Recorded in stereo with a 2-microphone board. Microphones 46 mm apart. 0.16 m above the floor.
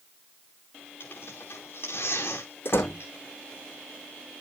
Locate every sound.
1.0 s tearing paper: 55° left (ahead or behind), 6 m
2.6 s a door slam: 55° left (ahead or behind), 7 m